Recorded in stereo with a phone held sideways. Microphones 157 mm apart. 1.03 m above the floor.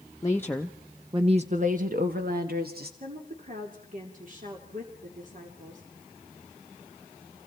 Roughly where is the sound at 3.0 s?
Right.